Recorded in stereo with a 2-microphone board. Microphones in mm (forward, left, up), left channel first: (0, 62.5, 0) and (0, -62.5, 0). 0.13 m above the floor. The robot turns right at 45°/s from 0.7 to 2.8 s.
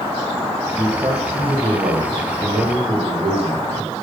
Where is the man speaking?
150° right, 4 m; by 3.9 s 55° right, 4 m.